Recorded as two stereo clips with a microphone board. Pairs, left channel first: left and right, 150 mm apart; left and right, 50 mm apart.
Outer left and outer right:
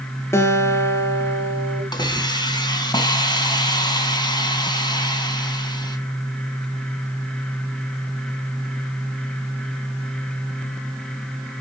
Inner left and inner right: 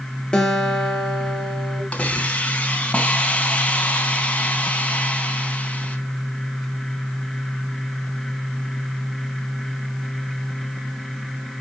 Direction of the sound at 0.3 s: 15° left (ahead or behind).